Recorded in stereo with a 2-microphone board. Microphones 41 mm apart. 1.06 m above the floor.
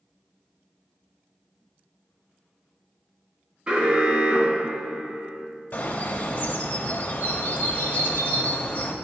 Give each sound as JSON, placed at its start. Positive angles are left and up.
{"t": 3.7, "sound": "an alarm", "side_deg": -20, "distance_m": 1.5}
{"t": 5.7, "sound": "a bird", "side_deg": 40, "distance_m": 0.9}